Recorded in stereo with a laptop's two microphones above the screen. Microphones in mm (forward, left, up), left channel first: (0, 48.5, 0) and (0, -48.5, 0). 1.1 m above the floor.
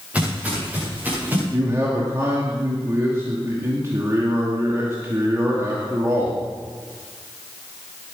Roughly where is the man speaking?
Right.